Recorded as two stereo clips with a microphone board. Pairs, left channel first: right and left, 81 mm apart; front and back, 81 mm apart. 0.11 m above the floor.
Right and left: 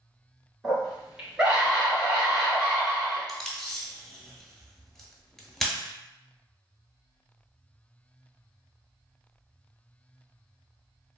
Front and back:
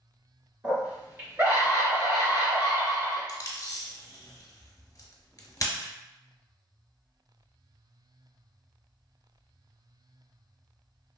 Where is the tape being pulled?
10° right, 0.7 m.